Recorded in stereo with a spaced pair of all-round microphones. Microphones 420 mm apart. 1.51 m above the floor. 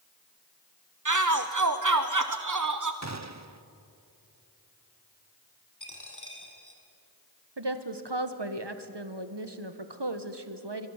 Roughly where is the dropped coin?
Left.